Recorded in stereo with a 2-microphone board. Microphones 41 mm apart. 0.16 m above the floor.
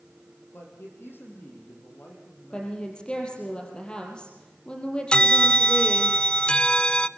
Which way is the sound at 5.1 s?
25° left (ahead or behind).